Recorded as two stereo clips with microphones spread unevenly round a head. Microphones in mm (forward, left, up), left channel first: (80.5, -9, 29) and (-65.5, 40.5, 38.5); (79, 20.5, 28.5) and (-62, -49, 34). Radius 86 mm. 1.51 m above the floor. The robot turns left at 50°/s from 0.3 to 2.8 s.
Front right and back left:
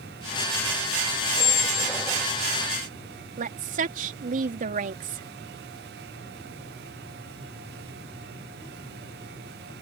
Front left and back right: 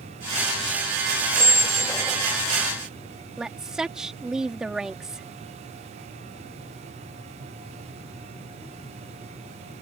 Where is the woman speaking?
120° left.